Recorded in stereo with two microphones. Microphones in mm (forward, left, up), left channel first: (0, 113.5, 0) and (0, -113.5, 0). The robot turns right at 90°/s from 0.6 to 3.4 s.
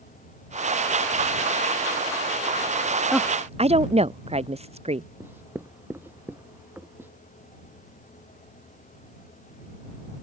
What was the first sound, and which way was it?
A woman speaking, centre (ahead or behind).